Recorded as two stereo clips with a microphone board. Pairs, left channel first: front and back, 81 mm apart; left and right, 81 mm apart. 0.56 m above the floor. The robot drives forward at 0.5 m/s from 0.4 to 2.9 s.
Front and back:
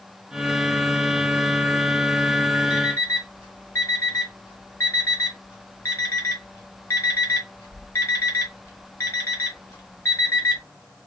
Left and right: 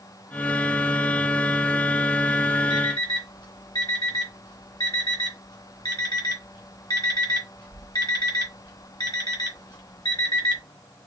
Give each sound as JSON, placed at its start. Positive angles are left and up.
{"t": 2.7, "sound": "an alarm clock", "azimuth_deg": 55, "distance_m": 2.5}